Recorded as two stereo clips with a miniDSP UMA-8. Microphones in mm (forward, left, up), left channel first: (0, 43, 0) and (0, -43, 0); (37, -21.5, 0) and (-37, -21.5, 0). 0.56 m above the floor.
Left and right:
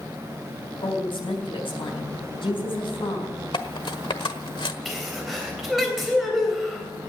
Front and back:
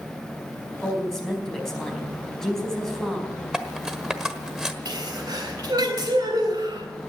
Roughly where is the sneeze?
Behind.